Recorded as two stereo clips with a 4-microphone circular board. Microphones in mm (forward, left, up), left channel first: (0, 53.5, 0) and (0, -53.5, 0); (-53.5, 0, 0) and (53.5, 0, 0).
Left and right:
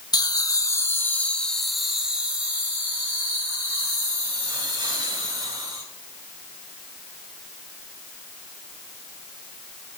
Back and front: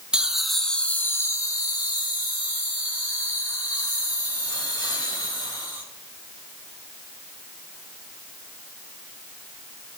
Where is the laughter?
75° left, 1.1 m; by 5.8 s 145° right, 3.5 m.